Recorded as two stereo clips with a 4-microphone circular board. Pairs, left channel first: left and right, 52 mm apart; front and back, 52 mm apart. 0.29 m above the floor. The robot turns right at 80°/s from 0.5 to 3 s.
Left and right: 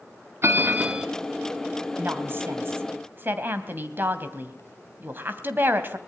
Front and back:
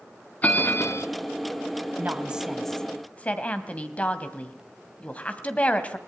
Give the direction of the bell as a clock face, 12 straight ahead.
2 o'clock.